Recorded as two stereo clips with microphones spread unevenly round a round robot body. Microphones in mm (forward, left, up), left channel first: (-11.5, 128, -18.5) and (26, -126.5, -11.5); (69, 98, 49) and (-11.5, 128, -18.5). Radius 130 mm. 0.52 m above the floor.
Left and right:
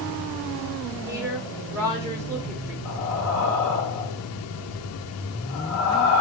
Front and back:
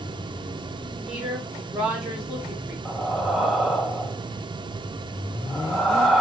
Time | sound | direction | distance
1.1 | a woman speaking | 160° right | 1.2 m
2.9 | breathing | 100° left | 1.1 m